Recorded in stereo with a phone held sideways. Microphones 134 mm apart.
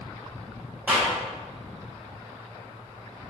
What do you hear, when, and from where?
0.9 s a clap: 10° right (ahead or behind), 3 m